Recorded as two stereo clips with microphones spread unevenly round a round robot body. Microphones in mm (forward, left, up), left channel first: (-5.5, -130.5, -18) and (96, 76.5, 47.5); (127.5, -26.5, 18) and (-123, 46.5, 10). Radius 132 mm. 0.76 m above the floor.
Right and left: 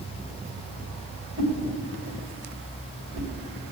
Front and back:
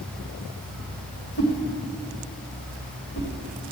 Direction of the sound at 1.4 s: 30° left.